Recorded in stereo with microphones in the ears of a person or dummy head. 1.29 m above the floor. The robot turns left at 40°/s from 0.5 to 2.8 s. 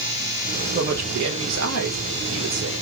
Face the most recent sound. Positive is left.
turn(degrees=-125)